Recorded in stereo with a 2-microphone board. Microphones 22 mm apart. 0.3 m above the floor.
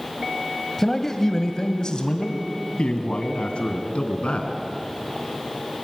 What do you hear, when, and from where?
0.8 s a man speaking: 15° left (ahead or behind), 1.3 m; by 4.6 s 70° left (ahead or behind), 3 m